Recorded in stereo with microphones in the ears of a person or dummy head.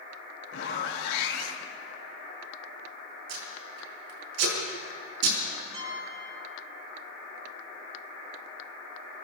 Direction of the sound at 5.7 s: 30° right (ahead or behind).